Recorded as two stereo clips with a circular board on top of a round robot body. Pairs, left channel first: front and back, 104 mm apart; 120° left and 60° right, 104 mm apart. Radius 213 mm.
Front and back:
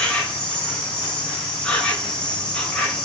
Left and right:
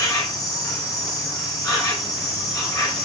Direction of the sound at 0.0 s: 80° left.